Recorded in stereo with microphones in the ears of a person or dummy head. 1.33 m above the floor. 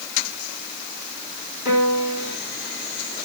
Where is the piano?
50° left (ahead or behind), 5 m.